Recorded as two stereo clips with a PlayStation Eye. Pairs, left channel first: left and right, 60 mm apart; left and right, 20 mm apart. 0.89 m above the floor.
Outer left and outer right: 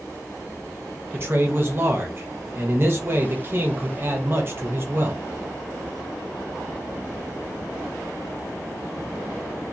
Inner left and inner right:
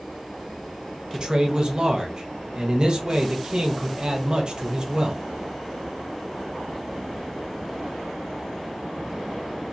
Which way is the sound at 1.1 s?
40° right (ahead or behind).